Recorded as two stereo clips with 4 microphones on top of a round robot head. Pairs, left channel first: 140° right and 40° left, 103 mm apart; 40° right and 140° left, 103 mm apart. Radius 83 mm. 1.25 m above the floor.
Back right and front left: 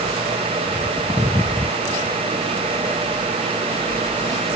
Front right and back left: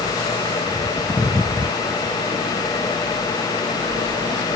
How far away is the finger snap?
I don't hear a finger snap.